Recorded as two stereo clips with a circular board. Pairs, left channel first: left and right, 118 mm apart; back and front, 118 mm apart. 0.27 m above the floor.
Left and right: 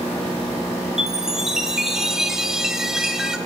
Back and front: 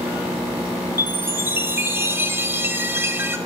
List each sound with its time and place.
1.0 s a chime: 10° right, 0.5 m